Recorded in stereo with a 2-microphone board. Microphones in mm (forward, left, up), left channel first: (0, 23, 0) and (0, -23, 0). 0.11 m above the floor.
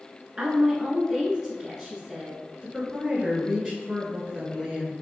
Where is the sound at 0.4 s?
20° right (ahead or behind), 1.2 m.